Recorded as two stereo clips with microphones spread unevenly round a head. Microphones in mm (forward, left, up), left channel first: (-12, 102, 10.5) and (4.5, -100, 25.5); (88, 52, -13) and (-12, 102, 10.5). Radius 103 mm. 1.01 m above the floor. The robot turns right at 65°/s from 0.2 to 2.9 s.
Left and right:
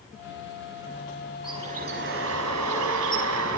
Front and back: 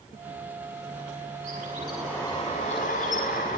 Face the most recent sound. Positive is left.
turn(degrees=-65)